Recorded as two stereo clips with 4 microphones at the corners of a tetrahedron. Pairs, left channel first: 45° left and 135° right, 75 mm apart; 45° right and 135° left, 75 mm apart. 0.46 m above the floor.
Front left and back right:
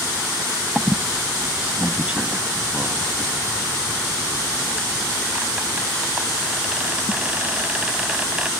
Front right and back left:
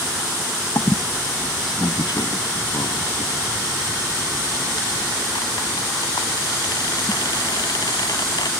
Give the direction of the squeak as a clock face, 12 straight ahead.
2 o'clock.